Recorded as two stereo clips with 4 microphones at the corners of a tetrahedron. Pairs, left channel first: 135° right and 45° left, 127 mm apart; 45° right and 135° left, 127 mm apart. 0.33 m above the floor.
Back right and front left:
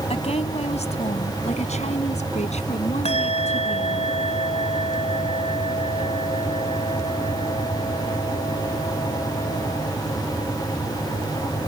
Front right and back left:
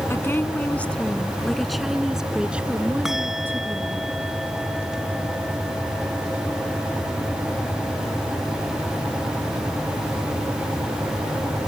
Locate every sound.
0.1 s a woman speaking: 115° right; by 4.0 s 155° right
3.0 s a bell: 140° right